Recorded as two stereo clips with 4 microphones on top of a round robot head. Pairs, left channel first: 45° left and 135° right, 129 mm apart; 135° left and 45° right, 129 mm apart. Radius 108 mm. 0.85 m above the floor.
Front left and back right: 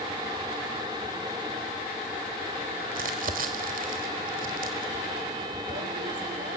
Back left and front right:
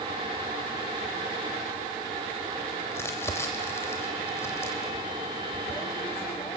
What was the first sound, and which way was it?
Crumpling, 155° right.